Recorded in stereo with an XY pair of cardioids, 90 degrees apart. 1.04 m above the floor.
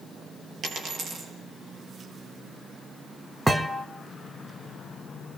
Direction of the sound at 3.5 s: 10° right.